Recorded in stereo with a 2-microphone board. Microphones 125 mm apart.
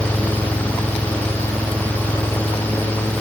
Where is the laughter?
I don't hear laughter.